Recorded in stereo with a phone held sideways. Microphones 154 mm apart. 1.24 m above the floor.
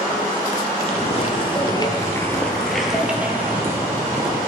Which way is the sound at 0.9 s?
40° left (ahead or behind).